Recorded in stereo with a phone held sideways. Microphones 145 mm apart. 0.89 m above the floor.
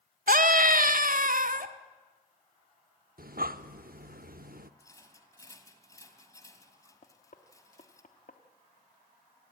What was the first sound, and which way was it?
A scream, 65° right (ahead or behind).